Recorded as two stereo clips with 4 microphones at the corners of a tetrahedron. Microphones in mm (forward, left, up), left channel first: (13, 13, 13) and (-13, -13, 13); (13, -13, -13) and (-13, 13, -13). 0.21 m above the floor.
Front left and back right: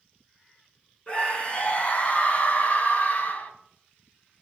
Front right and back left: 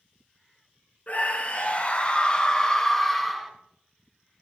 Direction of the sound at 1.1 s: 10° right.